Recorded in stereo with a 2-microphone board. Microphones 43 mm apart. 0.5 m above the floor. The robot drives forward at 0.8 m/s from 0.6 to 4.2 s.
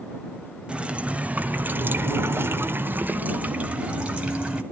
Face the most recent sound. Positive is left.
turn(degrees=-25)  # may be behind; listen again after turning